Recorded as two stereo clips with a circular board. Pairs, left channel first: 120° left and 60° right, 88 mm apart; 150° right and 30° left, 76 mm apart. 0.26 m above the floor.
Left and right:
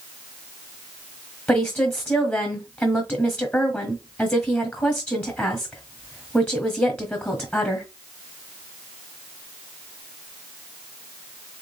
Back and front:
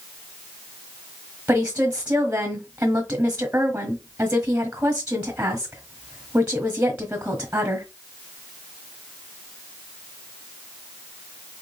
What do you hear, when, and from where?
1.5 s a woman speaking: 70° left, 1.2 m